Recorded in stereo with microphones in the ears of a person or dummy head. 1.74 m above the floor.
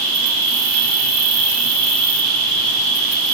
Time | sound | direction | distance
0.0 | an insect | 65° right (ahead or behind) | 6.5 m